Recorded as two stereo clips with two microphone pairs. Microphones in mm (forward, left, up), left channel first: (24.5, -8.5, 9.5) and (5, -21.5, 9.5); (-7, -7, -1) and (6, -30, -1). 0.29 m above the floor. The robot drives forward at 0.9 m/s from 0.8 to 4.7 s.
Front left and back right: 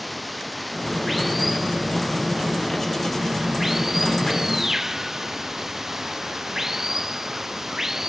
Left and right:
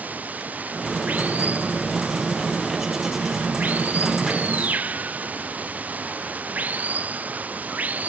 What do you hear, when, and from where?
0.0 s running water: 55° right; by 8.1 s 70° right